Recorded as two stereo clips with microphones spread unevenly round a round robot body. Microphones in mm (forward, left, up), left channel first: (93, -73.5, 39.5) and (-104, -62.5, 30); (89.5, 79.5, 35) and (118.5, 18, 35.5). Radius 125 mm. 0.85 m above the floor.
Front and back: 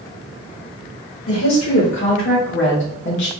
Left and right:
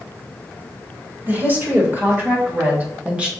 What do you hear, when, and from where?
1.3 s a woman speaking: 5° right, 2.5 m; by 3.3 s 5° left, 1.1 m